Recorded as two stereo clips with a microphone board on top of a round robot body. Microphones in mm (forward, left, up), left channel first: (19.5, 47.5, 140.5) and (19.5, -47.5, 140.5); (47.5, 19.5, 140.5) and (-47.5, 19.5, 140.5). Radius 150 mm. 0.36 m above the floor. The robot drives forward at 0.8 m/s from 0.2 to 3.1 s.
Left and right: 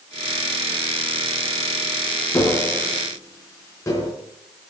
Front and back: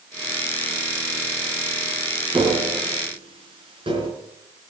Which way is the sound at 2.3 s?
150° left.